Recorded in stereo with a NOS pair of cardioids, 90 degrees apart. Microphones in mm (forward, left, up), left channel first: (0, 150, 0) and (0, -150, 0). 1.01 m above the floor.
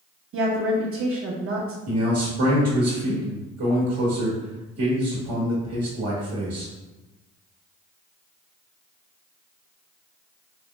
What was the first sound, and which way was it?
A woman speaking, 55° right.